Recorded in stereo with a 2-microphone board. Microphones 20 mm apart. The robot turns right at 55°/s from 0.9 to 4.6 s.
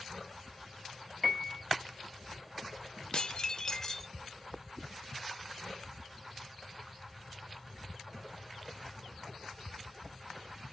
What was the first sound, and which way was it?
A piano, 5° left (ahead or behind).